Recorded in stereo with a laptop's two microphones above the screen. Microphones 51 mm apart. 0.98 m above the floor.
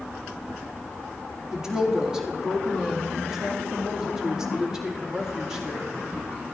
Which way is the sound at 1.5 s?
10° right (ahead or behind).